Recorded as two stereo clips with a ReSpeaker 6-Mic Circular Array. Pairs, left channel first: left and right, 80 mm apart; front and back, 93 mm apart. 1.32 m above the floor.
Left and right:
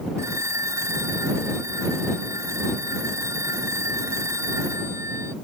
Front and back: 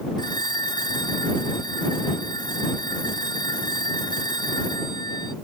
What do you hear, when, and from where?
0.2 s a phone ringing: 40° right